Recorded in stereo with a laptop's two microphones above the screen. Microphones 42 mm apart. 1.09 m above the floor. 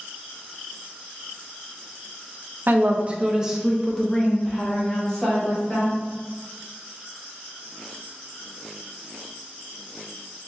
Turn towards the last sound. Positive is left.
turn(degrees=20)  # may be behind; listen again after turning